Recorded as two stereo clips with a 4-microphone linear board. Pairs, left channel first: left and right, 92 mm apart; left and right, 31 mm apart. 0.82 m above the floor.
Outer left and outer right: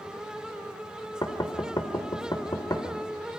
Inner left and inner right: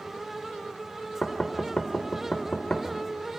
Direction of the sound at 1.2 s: 45° left (ahead or behind).